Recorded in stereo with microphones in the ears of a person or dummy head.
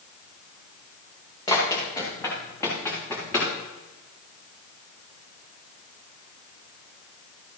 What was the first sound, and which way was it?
Running footsteps, 25° left (ahead or behind).